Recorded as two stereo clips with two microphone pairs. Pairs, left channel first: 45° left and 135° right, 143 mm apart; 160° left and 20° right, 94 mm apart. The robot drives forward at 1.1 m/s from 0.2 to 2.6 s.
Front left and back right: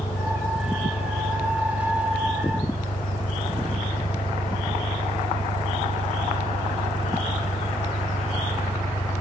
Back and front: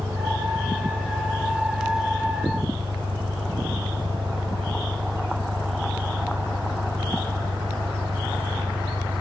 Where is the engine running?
30° left; by 9.2 s 35° left.